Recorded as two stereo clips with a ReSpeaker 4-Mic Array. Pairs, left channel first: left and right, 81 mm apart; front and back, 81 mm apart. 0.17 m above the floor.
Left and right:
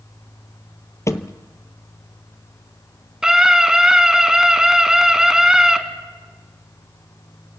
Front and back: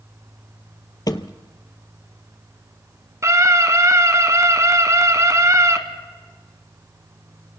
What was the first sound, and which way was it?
A thud, 35° left.